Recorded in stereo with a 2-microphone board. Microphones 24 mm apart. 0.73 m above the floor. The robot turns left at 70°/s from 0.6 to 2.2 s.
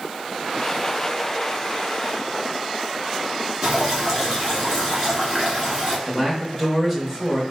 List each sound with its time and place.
3.6 s dripping: 20° right (ahead or behind), 1.8 m
6.1 s a man speaking: 5° left (ahead or behind), 0.9 m